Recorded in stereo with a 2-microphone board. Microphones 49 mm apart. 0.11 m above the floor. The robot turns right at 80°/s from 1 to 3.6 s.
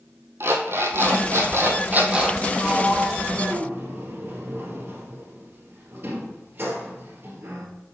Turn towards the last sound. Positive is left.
turn(degrees=-55)  # may be behind; listen again after turning